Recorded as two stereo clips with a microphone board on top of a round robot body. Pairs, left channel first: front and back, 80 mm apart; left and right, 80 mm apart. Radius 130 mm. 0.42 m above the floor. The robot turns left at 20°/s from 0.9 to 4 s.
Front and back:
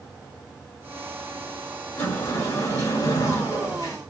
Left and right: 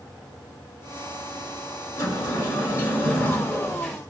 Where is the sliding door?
60° left, 1.6 m; by 4.0 s 15° left, 1.6 m.